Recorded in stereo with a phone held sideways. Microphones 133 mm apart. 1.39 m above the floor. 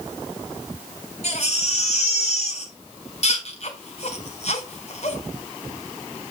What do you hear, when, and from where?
1.2 s a baby crying: 55° left (ahead or behind), 3 m